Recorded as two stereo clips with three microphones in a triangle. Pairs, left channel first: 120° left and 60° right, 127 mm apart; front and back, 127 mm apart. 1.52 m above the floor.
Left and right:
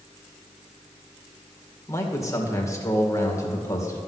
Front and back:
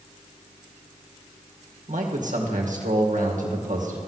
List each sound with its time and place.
1.9 s a man speaking: 175° right, 2.0 m